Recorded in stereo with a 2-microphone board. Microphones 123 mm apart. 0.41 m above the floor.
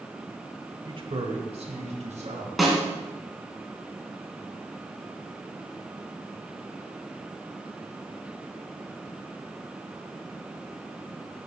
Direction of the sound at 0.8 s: 40° right (ahead or behind).